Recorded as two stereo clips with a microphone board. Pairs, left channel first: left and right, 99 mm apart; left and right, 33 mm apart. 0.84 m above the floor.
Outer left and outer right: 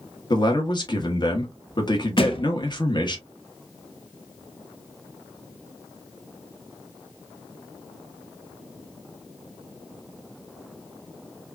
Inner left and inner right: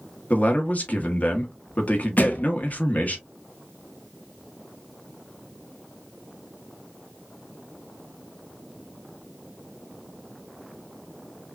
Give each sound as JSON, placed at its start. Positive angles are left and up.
{"t": 0.3, "sound": "a man speaking", "side_deg": 45, "distance_m": 1.1}
{"t": 2.2, "sound": "a thud", "side_deg": 65, "distance_m": 1.0}